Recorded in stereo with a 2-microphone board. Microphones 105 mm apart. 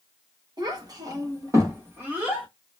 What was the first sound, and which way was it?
A child speaking, 40° right (ahead or behind).